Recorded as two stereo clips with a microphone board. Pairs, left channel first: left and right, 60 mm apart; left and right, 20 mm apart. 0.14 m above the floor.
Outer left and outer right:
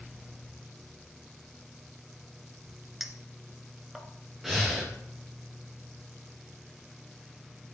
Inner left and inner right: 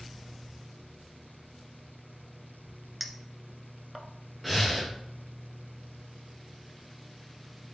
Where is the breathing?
5° right (ahead or behind), 3 m.